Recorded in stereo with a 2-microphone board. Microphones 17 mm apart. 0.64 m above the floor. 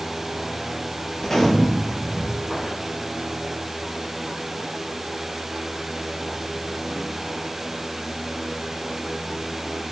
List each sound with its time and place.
1.2 s a gunshot: 30° left (ahead or behind), 6 m